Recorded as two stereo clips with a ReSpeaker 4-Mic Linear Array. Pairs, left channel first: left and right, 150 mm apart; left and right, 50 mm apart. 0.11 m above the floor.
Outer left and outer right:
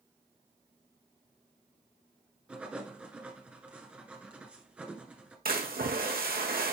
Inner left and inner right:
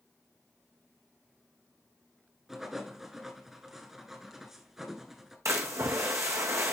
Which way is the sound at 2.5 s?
10° right (ahead or behind).